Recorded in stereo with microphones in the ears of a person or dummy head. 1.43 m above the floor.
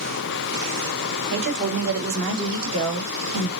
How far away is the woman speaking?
About 3 m.